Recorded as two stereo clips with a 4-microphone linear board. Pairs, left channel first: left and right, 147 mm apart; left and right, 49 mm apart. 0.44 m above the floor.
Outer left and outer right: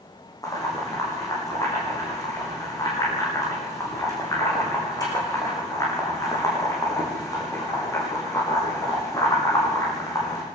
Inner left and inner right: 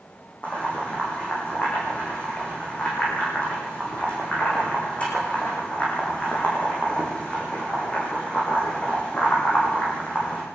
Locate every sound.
0.4 s boiling: 25° left (ahead or behind), 8.5 m